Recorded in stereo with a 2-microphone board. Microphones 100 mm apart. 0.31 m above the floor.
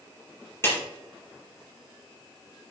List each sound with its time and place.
0.6 s a clap: 25° left (ahead or behind), 5 m